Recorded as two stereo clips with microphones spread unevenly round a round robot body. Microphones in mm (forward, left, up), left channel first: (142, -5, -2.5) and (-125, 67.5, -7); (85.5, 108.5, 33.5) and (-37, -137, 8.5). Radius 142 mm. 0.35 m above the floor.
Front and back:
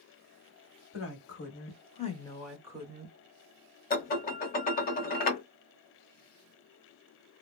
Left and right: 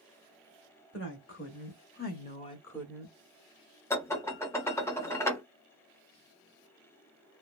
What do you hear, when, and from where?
0.9 s a woman speaking: 20° left, 1.5 m; by 3.1 s 175° left, 0.9 m
3.9 s dishes clattering: 15° right, 0.7 m